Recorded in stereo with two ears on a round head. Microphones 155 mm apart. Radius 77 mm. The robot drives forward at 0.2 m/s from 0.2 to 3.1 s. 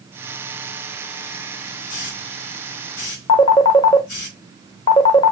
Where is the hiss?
45° left (ahead or behind), 3 m; by 4.3 s 50° left (ahead or behind), 3 m.